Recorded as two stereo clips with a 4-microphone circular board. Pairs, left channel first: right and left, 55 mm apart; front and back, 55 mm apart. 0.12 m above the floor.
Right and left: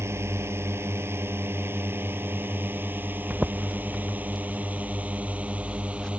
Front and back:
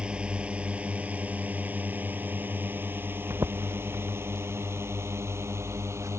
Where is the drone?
115° left; by 6.2 s 155° left.